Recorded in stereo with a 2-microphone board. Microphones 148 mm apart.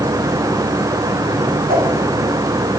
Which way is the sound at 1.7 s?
85° right.